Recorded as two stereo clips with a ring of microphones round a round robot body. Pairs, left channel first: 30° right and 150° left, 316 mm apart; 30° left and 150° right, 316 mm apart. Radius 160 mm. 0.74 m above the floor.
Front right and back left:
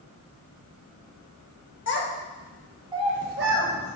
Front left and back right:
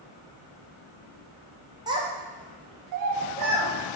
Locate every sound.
1.9 s a child speaking: 75° right, 0.7 m; by 4.0 s 170° right, 1.1 m